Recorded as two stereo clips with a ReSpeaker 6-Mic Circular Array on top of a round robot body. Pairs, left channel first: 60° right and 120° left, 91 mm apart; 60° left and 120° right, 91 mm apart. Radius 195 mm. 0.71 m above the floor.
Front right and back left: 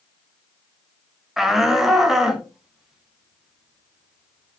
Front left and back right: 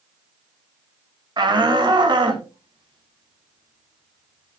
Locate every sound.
1.4 s a shout: 155° right, 2 m